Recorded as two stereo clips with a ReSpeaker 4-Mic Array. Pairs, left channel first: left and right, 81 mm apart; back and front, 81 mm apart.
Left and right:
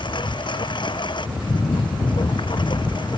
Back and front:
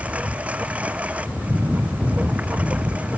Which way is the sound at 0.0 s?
75° left.